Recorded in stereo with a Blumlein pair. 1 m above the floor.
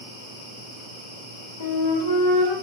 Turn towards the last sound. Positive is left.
turn(degrees=55)